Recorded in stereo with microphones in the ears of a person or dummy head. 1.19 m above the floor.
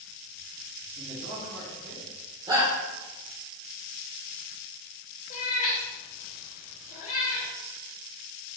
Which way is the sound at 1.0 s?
50° right (ahead or behind).